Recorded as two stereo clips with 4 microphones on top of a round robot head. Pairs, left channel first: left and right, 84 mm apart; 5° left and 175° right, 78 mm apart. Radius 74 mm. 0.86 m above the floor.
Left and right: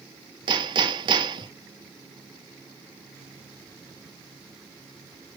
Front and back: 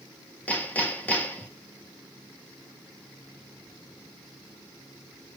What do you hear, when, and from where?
0.5 s hammering: 65° right, 1.5 m